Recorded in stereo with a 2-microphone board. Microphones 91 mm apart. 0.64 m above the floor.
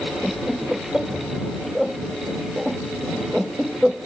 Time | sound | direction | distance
0.2 | laughter | 5° right (ahead or behind) | ?